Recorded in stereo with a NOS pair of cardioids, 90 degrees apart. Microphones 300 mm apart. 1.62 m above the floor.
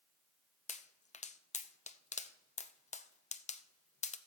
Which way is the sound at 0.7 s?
25° left.